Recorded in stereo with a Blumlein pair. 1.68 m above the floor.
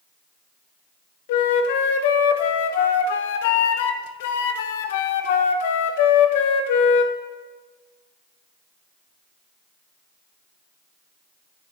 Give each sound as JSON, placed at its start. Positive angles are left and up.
{"t": 1.3, "sound": "a flute", "azimuth_deg": 50, "distance_m": 0.7}